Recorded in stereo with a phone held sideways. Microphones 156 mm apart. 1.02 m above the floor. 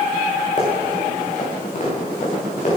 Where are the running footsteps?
50° left (ahead or behind), 5 m.